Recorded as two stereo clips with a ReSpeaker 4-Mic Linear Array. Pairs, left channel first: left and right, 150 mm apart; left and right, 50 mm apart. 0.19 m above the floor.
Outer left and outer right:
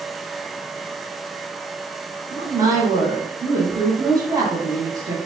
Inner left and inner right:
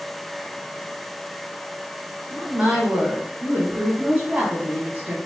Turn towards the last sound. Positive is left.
turn(degrees=-25)  # may be behind; listen again after turning